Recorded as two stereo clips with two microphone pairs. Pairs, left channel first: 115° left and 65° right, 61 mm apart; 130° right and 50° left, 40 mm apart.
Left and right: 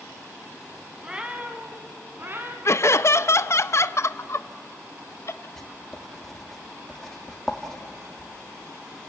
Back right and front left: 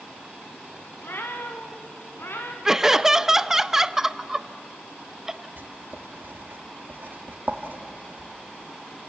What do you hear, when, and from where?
1.0 s a cat meowing: 140° right, 2 m; by 2.5 s 115° right, 2.5 m
2.6 s laughter: 130° left, 0.6 m
5.6 s writing: 30° left, 1.8 m